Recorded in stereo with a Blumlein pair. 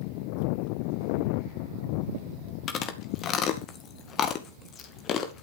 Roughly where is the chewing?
Ahead left.